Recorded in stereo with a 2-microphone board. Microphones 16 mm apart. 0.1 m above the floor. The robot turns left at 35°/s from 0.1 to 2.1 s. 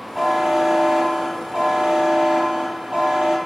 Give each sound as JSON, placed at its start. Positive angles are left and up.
{"t": 0.1, "sound": "a buzzer", "azimuth_deg": -15, "distance_m": 2.5}